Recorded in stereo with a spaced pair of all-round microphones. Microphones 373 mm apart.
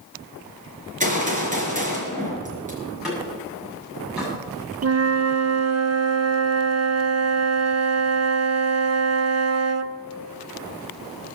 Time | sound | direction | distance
1.0 | a gunshot | 20° right (ahead or behind) | 4.5 m
2.8 | a door slam | centre (ahead or behind) | 7.5 m
4.8 | a flute | 45° right (ahead or behind) | 0.6 m